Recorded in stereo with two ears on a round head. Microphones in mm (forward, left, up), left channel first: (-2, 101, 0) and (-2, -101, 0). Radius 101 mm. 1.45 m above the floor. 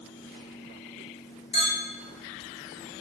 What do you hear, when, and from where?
1.5 s a clink: 25° left (ahead or behind), 0.7 m